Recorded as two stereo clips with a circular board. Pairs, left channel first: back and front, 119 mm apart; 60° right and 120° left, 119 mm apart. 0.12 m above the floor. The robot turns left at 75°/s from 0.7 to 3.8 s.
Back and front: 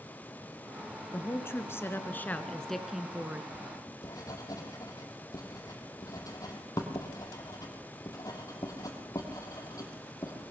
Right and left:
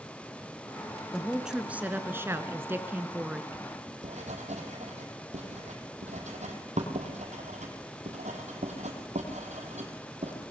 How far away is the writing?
About 3 m.